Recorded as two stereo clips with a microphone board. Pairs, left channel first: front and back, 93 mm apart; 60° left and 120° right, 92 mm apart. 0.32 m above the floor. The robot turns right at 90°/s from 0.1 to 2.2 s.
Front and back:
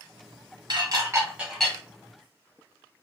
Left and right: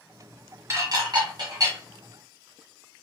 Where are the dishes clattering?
165° right, 1.0 m; by 1.8 s 70° right, 1.0 m.